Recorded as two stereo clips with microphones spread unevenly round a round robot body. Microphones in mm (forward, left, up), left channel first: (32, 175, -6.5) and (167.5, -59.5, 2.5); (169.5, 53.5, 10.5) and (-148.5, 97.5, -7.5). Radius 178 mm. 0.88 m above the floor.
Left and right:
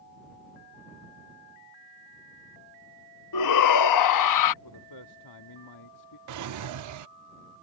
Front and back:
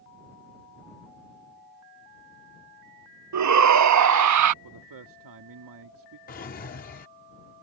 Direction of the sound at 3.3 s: 135° left.